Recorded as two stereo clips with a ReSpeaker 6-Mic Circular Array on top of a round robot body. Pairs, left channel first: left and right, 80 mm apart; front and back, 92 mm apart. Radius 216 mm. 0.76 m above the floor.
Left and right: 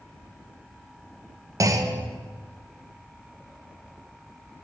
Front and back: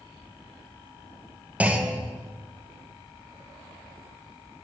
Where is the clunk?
110° right, 0.9 m.